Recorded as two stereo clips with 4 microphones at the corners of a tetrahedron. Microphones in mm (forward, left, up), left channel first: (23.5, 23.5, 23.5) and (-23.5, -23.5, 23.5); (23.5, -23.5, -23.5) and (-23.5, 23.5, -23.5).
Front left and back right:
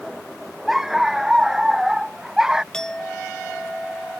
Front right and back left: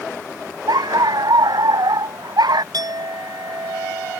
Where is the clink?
125° left.